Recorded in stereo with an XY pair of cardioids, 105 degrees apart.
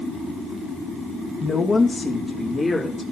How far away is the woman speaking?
About 1.8 m.